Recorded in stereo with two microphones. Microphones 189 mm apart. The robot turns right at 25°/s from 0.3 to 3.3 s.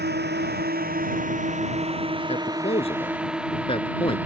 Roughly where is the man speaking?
Left.